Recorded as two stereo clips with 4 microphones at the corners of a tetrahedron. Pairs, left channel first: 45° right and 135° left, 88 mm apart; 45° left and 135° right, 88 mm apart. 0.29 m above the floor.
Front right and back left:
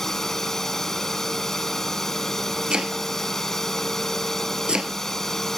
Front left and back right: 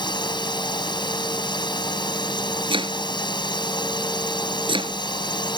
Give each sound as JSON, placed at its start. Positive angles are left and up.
{"t": 0.0, "sound": "a drone", "azimuth_deg": 40}
{"t": 2.7, "sound": "chopping", "azimuth_deg": -145}